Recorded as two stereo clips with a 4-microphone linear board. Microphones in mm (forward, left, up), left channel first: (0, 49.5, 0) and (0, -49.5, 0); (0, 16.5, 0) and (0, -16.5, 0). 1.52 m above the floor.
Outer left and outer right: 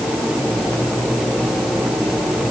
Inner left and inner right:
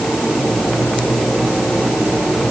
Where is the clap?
I don't hear a clap.